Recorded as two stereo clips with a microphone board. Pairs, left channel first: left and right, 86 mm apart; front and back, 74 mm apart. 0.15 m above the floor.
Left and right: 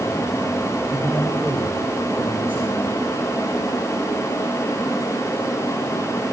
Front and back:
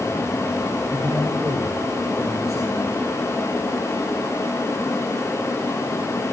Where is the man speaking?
155° right, 5.5 m.